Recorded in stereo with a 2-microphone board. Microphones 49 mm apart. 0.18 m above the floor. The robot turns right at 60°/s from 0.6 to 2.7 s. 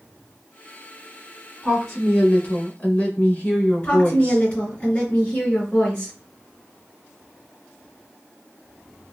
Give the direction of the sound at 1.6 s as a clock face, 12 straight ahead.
12 o'clock.